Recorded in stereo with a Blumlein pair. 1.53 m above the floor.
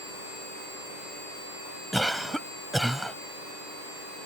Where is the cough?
Straight ahead.